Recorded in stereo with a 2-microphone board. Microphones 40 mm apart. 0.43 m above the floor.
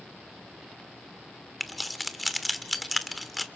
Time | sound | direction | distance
1.6 | keys jangling | centre (ahead or behind) | 0.8 m